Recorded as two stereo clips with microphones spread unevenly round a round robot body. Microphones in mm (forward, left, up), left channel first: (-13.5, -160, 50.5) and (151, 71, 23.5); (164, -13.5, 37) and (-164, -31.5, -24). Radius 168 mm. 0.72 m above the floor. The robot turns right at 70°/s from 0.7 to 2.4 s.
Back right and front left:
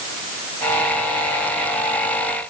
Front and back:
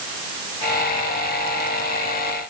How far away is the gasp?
No gasp in this recording.